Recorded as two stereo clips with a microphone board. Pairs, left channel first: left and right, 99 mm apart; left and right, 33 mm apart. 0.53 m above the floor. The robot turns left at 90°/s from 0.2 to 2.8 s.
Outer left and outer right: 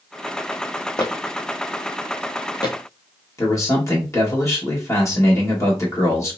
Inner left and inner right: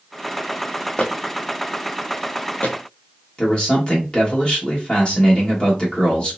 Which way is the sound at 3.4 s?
30° left (ahead or behind).